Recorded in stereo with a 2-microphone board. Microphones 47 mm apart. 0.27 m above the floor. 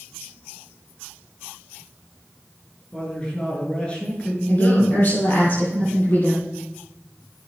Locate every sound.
2.9 s a man speaking: 25° left (ahead or behind), 5 m
4.5 s a woman speaking: 45° left (ahead or behind), 7 m